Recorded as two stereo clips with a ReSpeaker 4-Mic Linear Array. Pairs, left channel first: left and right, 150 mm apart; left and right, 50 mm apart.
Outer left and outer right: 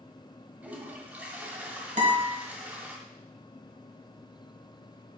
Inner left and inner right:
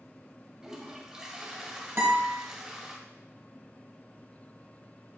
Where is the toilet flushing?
10° right (ahead or behind), 1.3 m.